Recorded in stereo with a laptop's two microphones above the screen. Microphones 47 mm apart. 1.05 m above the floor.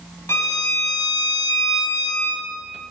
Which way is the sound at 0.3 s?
75° left (ahead or behind).